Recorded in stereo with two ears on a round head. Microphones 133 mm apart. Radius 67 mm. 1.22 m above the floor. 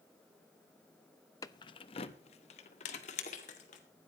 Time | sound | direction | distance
1.4 | keys jangling | 20° left (ahead or behind) | 0.6 m